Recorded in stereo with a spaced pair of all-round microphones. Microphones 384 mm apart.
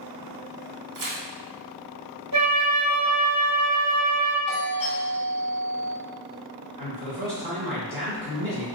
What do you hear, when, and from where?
0.9 s tearing paper: 55° right (ahead or behind), 0.5 m
2.3 s a flute: 55° left (ahead or behind), 1.2 m
4.5 s a doorbell: 65° left (ahead or behind), 1.5 m
6.8 s a man speaking: 75° left (ahead or behind), 1.5 m